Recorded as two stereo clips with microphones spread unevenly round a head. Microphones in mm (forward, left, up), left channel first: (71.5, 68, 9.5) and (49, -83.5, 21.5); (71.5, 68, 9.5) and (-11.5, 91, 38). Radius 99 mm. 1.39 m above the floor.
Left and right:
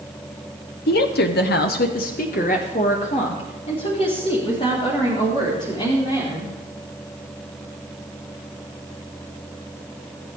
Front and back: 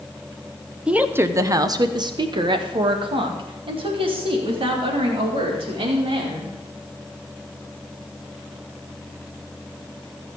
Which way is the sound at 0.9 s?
80° left.